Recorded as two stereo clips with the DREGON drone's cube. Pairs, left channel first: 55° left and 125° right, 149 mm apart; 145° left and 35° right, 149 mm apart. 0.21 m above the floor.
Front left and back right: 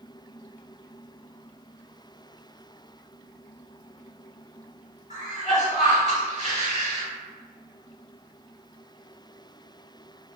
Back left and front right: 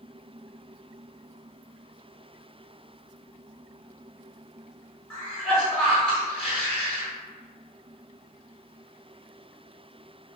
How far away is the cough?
About 2.0 m.